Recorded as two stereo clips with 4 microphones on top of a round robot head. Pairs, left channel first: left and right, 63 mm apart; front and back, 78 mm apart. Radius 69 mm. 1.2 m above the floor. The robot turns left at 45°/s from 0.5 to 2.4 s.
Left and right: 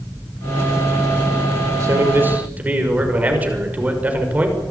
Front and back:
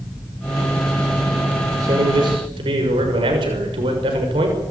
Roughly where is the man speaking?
Behind right.